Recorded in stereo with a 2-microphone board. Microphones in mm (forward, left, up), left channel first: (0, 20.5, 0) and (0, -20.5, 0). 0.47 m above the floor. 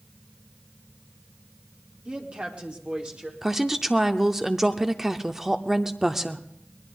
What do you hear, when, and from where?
2.0 s a woman speaking: 20° right (ahead or behind), 1.4 m; by 3.3 s 25° right (ahead or behind), 1.8 m
3.4 s a woman speaking: 5° right (ahead or behind), 0.7 m